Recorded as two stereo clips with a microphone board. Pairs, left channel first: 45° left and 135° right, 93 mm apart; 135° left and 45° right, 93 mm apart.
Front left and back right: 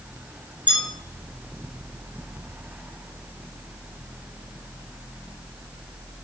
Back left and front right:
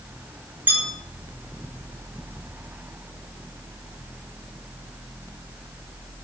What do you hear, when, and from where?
0.7 s a bell: 110° right, 4 m